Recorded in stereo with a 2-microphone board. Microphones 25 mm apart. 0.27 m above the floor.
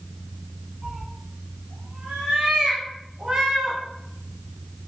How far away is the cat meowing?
About 1.4 m.